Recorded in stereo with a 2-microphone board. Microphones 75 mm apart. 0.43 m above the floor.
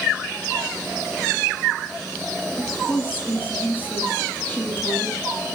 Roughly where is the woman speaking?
Left.